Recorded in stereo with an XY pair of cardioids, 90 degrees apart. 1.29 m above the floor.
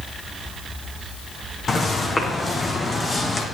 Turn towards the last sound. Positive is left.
turn(degrees=30)